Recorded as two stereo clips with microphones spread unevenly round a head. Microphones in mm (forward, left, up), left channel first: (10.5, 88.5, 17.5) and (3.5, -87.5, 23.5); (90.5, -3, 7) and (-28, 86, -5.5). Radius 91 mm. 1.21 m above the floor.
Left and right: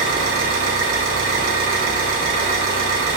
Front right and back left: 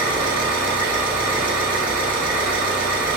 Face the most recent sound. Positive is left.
turn(degrees=-135)